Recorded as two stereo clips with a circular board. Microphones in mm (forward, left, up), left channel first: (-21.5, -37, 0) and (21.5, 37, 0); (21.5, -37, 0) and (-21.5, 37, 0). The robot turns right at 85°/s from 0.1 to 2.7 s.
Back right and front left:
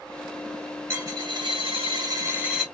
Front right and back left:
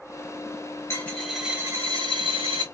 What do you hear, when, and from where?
0.9 s a dropped coin: straight ahead, 1.3 m; by 2.6 s 145° left, 1.3 m